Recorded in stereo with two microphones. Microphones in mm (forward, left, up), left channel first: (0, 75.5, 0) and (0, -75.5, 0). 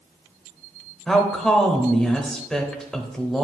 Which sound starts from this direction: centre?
A woman speaking, at 1.1 s.